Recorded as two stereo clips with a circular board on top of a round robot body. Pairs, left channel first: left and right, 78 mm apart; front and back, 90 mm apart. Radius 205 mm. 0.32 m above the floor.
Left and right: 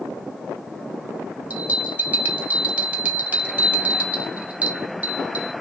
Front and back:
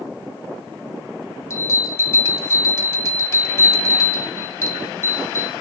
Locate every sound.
1.5 s a bell: 35° right, 1.1 m